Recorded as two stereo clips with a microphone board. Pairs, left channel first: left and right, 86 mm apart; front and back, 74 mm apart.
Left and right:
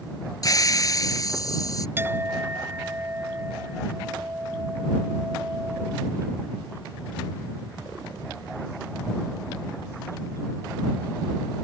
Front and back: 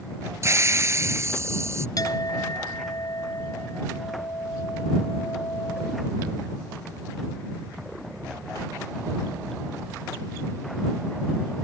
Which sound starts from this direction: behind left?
A hiss, at 0.4 s.